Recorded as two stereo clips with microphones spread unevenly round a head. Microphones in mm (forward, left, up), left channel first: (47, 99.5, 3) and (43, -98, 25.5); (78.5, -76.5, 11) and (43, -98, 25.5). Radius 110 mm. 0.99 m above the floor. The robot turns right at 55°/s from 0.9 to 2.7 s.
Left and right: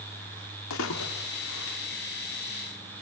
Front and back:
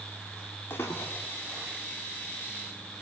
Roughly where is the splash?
Left.